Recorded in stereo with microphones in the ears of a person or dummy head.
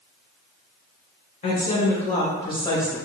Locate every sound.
1.4 s a woman speaking: 40° left (ahead or behind), 0.9 m; by 3.0 s 5° left (ahead or behind), 1.4 m